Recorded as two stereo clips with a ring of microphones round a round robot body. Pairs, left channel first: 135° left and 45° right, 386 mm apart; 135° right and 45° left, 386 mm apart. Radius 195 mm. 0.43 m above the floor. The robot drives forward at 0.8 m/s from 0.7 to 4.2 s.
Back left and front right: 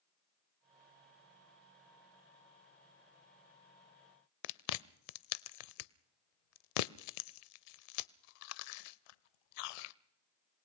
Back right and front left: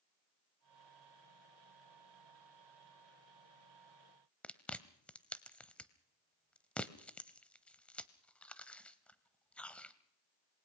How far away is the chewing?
About 0.6 m.